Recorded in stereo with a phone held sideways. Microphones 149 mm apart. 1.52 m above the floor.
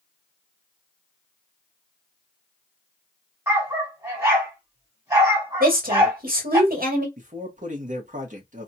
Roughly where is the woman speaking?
Right.